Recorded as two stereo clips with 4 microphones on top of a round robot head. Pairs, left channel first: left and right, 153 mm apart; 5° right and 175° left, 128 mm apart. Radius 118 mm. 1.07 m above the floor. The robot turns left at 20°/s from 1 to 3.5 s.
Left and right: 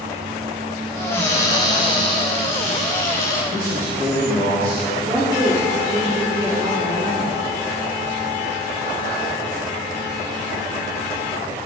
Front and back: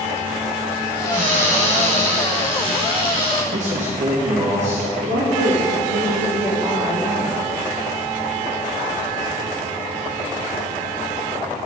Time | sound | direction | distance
1.1 | a cupboard door | 165° left | 2 m
3.5 | a man speaking | 165° left | 1.6 m
5.0 | a woman speaking | 155° right | 2.5 m